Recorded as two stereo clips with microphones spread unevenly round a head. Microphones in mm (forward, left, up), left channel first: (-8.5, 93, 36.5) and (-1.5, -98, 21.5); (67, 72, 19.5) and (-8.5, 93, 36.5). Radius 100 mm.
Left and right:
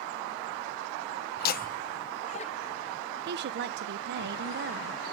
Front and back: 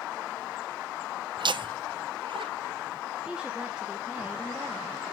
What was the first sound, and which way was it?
Laughter, 130° left.